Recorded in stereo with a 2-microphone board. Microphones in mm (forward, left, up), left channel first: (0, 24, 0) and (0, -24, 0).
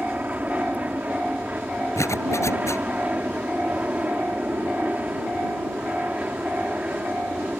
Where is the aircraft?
35° right (ahead or behind).